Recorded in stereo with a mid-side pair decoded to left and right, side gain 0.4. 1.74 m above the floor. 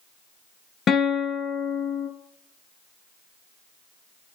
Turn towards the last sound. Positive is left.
turn(degrees=65)